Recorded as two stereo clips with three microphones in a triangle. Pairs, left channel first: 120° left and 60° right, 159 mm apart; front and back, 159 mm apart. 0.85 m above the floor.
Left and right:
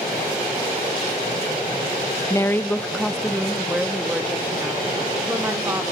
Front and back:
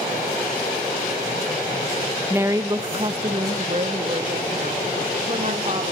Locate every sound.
2.3 s a woman speaking: 135° left, 0.9 m; by 5.9 s 135° right, 3 m